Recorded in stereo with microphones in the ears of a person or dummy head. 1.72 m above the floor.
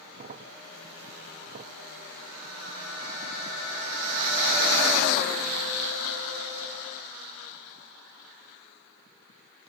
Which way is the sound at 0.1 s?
40° right (ahead or behind).